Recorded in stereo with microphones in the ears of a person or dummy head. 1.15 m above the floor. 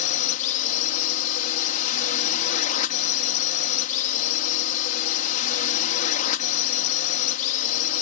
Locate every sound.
0.0 s a drone: 40° left (ahead or behind)